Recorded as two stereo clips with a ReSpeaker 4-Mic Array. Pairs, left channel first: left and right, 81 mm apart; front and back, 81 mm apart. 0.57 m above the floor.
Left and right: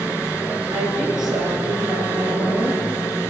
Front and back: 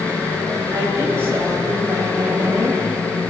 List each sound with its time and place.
0.7 s a woman speaking: 120° right, 8.5 m